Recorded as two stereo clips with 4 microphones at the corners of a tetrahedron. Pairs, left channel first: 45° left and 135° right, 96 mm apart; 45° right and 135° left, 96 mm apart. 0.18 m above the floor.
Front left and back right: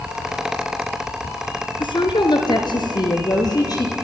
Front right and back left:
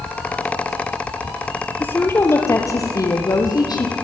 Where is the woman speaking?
25° left, 2.5 m; by 4.0 s straight ahead, 5 m.